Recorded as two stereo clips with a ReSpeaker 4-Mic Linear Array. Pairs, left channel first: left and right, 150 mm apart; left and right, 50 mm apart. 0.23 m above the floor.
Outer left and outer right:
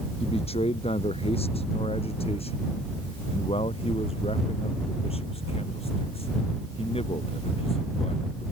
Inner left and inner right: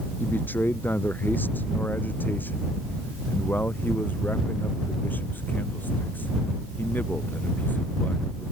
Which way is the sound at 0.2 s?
45° left (ahead or behind).